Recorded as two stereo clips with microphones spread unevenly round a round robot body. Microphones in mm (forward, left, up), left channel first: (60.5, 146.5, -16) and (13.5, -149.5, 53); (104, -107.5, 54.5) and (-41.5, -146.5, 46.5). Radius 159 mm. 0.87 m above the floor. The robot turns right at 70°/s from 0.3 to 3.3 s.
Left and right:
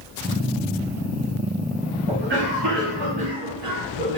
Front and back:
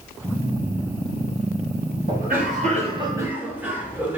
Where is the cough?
175° right, 2 m; by 4.2 s 90° right, 2 m.